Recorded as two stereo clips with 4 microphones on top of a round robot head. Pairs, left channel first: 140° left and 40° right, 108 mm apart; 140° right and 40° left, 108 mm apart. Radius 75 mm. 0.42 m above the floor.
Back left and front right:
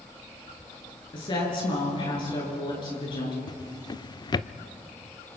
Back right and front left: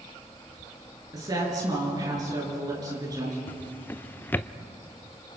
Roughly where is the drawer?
Behind left.